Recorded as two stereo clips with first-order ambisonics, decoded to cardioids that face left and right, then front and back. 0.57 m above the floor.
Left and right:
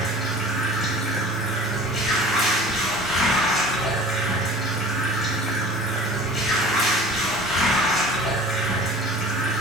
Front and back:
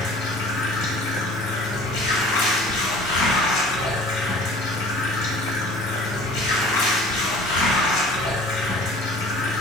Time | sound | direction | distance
0.0 | running water | straight ahead | 1.5 m